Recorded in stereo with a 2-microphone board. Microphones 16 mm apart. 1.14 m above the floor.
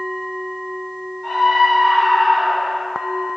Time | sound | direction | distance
1.2 | a scream | 65° left (ahead or behind) | 4.5 m